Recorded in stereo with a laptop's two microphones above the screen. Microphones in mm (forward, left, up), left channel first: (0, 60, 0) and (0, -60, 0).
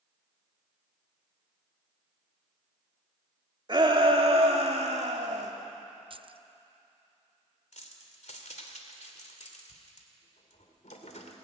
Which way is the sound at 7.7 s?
75° left (ahead or behind).